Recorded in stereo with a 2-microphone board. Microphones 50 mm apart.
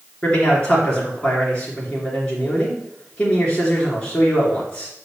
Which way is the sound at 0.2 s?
25° left (ahead or behind).